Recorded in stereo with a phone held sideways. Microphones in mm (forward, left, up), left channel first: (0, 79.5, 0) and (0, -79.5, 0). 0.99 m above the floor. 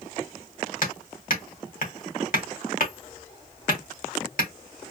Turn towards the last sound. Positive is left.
turn(degrees=60)  # may be behind; listen again after turning